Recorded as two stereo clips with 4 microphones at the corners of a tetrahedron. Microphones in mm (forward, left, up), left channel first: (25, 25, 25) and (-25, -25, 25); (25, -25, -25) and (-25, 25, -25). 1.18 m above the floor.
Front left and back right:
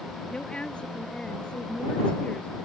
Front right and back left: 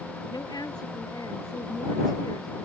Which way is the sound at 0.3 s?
30° right.